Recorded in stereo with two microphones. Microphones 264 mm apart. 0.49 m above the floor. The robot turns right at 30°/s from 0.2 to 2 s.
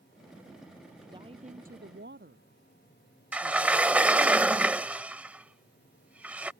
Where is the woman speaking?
15° right (ahead or behind); by 4.3 s 45° right (ahead or behind).